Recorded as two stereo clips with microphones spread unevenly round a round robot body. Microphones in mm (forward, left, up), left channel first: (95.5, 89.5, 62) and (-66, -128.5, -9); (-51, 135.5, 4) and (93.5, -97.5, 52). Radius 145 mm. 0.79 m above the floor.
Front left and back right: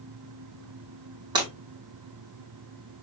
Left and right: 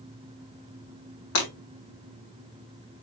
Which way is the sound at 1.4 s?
160° left.